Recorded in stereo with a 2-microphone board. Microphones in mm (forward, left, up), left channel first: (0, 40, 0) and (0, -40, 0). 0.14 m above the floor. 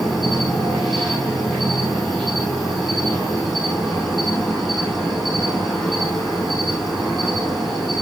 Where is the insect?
5° right (ahead or behind), 5.5 m.